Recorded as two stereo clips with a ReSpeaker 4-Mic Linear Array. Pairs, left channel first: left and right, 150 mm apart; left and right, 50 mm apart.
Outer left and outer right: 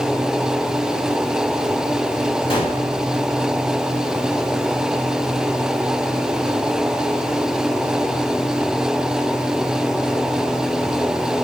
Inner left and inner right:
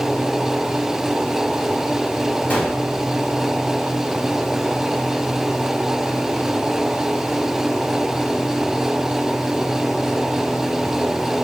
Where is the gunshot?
35° left (ahead or behind), 2.5 m.